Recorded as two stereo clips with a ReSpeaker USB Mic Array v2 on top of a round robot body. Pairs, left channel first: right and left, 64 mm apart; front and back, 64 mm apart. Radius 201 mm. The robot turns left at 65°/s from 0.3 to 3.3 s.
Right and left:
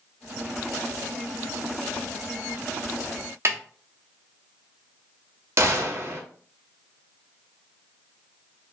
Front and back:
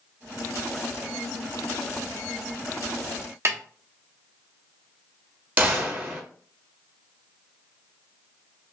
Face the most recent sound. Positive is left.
turn(degrees=125)